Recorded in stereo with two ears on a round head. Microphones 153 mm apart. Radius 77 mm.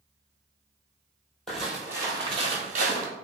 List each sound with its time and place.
1.5 s footsteps: centre (ahead or behind), 0.9 m; by 3.1 s 50° right (ahead or behind), 1.0 m